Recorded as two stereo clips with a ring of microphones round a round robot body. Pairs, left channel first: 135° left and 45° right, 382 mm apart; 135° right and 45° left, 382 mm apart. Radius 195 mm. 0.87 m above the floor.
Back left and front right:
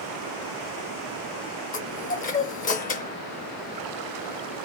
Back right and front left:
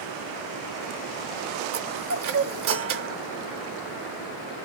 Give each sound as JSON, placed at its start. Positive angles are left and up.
{"t": 1.7, "sound": "a chime", "azimuth_deg": 75, "distance_m": 0.7}